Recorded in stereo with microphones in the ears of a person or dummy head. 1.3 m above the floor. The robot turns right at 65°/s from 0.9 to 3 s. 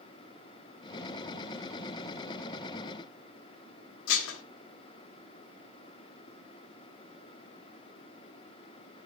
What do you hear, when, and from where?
4.1 s dishes clattering: 75° left (ahead or behind), 2.0 m